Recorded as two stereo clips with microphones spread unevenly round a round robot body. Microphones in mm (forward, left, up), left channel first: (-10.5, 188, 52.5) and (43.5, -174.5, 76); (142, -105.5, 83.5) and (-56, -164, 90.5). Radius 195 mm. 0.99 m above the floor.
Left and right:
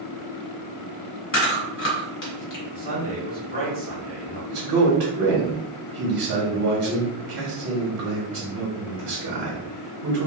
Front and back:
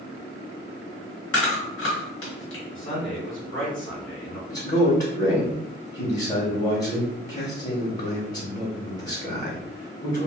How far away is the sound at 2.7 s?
About 1.6 m.